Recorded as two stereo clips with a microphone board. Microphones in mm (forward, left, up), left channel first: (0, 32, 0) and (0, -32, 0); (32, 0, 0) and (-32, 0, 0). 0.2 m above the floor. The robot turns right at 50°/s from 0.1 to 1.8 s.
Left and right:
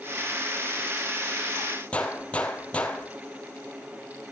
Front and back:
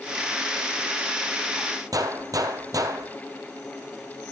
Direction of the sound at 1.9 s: 160° left.